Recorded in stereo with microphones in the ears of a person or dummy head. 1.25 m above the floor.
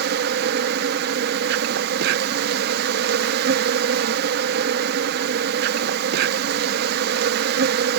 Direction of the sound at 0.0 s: 55° right (ahead or behind).